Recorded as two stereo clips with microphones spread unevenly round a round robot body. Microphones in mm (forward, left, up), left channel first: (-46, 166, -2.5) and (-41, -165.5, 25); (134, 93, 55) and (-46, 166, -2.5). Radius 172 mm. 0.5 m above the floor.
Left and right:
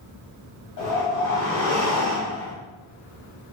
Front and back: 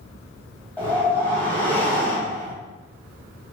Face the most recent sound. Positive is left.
turn(degrees=75)